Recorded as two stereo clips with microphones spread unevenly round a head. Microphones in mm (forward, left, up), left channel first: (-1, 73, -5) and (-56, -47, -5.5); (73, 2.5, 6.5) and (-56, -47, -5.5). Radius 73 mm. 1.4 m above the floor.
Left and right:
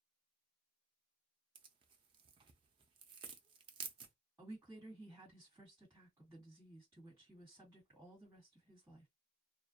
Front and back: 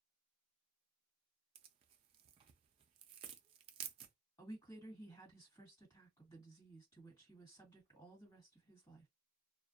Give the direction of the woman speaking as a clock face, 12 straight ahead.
1 o'clock.